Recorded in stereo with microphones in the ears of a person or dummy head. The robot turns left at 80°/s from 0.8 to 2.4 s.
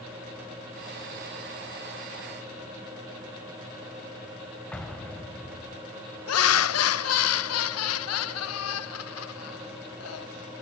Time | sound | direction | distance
4.7 | an explosion | 5° left (ahead or behind) | 2 m
6.3 | laughter | 80° left | 1.1 m